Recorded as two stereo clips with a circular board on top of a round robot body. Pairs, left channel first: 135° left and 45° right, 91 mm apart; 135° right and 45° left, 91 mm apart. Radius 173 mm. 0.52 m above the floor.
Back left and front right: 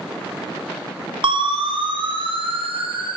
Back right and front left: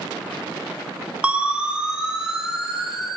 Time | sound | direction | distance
1.2 | a siren | 30° right | 3.5 m